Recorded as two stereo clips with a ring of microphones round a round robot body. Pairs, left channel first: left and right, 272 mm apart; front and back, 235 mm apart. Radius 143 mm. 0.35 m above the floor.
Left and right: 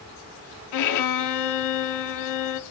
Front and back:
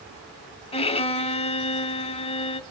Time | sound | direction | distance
0.7 | a violin | 65° left | 0.7 m